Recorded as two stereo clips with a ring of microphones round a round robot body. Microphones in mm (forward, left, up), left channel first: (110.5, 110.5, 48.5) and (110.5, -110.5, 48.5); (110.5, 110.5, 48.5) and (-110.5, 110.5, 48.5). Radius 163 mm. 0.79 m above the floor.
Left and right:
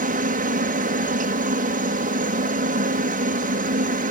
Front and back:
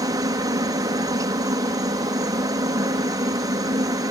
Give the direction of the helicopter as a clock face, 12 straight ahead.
4 o'clock.